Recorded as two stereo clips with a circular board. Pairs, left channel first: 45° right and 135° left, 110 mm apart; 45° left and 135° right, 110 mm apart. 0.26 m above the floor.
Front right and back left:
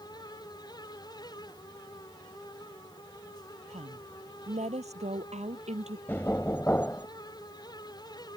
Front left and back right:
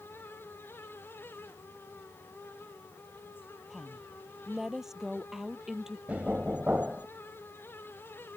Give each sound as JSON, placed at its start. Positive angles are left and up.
{"t": 3.7, "sound": "a woman speaking", "azimuth_deg": 140}
{"t": 6.1, "sound": "knocking", "azimuth_deg": -80}